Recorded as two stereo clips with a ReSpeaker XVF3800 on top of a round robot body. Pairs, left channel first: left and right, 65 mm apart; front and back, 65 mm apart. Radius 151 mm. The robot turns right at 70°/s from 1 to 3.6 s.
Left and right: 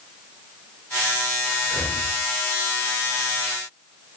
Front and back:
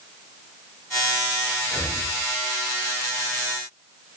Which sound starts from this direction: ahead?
Breathing, at 1.6 s.